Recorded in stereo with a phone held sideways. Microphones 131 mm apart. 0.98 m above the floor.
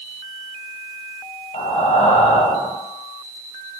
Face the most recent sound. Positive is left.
turn(degrees=55)  # may be behind; listen again after turning